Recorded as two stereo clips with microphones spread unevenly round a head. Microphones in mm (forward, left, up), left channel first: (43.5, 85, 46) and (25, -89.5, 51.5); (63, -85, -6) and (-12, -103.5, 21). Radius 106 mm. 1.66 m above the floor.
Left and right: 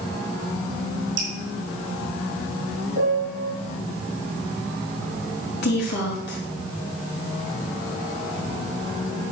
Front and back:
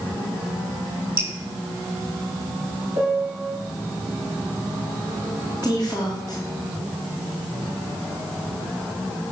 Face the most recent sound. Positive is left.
turn(degrees=115)